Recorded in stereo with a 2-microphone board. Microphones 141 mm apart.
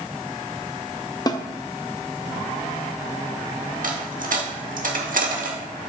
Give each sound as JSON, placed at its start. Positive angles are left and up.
{"t": 1.3, "sound": "a snare drum", "side_deg": 30, "distance_m": 0.6}
{"t": 3.8, "sound": "a dropped coin", "side_deg": -70, "distance_m": 1.1}